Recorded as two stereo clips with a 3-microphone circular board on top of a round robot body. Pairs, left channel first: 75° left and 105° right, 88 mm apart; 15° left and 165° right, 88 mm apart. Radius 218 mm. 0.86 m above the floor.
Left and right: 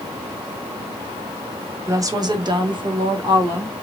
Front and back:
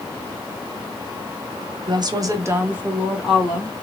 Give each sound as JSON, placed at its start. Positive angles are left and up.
{"t": 1.9, "sound": "a woman speaking", "azimuth_deg": -155, "distance_m": 1.1}